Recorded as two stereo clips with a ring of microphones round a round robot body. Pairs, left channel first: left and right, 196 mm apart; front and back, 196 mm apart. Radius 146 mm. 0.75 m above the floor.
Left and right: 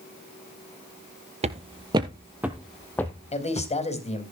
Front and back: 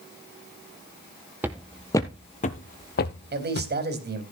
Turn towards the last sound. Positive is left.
turn(degrees=145)